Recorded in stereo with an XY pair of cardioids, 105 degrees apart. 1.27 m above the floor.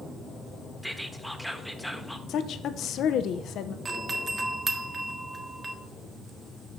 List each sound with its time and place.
0.8 s whispering: straight ahead, 1.3 m
2.3 s a woman speaking: 70° left, 0.7 m
3.9 s a doorbell: 30° right, 1.4 m